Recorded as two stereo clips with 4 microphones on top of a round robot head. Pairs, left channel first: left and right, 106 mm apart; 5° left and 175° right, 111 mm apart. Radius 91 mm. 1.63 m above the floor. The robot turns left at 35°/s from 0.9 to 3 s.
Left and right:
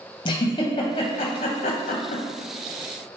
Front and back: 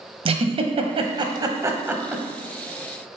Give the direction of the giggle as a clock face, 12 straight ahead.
7 o'clock.